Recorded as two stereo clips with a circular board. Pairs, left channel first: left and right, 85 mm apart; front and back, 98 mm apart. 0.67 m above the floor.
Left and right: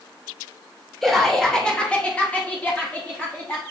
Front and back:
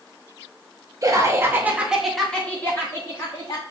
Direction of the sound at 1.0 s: 175° left.